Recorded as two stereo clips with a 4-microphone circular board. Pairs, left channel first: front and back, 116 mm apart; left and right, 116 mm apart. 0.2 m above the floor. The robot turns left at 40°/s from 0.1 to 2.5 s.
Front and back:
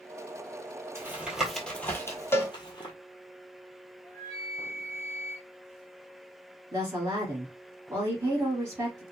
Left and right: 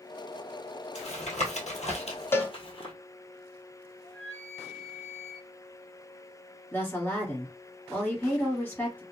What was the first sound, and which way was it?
Tapping, 110° left.